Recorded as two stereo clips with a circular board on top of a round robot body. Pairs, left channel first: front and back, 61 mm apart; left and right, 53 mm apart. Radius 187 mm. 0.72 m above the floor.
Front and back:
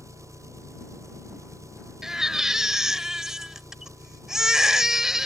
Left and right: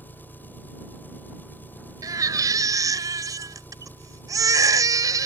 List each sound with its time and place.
0.0 s an engine running: 145° left
2.0 s a baby crying: 95° right